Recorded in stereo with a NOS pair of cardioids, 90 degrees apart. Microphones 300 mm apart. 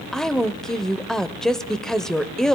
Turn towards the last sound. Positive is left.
turn(degrees=0)